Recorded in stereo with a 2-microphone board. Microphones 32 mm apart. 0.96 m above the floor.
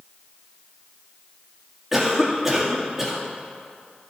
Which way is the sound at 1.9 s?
5° right (ahead or behind).